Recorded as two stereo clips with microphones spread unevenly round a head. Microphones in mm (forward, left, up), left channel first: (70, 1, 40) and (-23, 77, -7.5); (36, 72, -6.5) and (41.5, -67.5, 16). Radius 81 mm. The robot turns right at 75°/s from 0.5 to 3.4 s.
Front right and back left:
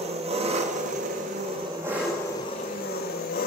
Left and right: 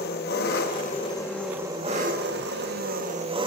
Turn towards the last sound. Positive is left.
turn(degrees=-35)